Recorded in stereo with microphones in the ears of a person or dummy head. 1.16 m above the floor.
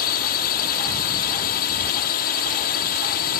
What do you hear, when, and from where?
0.0 s a drone: 50° left (ahead or behind)